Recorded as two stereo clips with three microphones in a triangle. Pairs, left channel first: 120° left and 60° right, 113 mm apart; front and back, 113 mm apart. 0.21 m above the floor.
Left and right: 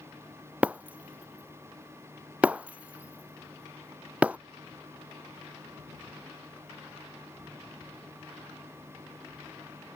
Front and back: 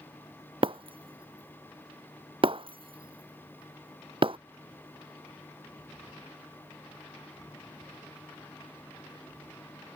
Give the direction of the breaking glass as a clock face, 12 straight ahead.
5 o'clock.